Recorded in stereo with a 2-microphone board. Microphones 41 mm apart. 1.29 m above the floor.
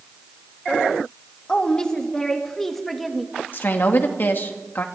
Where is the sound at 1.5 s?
20° left (ahead or behind), 2.5 m; by 3.3 s centre (ahead or behind), 2 m.